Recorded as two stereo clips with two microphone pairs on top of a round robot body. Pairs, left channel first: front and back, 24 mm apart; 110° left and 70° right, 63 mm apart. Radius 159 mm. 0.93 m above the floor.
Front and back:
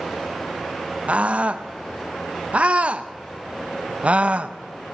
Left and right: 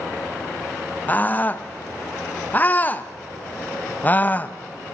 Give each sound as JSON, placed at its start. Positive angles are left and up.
{"t": 1.1, "sound": "a scream", "azimuth_deg": 175, "distance_m": 1.2}